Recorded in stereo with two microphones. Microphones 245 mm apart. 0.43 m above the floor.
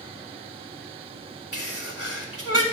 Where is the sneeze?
65° left (ahead or behind), 2.5 m.